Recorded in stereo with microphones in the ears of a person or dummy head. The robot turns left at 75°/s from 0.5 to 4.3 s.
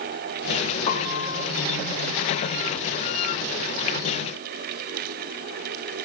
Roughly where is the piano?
Behind left.